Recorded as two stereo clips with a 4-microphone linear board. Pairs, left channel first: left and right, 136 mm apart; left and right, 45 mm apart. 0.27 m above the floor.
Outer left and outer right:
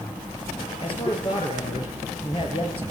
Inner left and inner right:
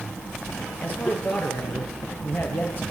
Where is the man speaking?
40° left (ahead or behind), 6 m.